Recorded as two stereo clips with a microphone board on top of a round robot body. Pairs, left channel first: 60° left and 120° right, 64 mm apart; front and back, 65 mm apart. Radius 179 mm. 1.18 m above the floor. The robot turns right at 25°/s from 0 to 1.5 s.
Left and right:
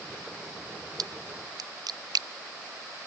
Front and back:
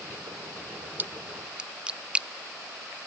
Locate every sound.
1.0 s a splash: 120° right; by 2.3 s 105° right